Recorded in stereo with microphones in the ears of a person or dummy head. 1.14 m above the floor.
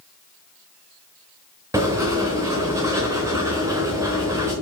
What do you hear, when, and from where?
1.7 s writing: 10° right (ahead or behind), 1.2 m